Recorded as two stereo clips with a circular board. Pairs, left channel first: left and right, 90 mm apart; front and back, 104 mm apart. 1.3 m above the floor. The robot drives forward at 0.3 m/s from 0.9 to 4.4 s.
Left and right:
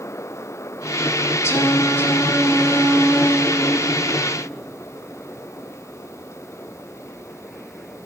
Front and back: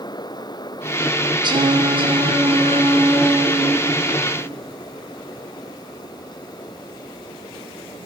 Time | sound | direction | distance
1.4 | singing | 145° left | 0.8 m